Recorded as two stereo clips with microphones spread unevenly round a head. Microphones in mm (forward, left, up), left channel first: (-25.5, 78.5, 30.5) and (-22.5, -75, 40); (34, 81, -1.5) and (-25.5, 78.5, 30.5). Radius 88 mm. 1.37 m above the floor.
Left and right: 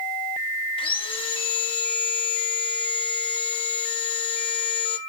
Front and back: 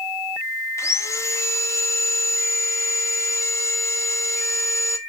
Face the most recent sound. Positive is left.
turn(degrees=35)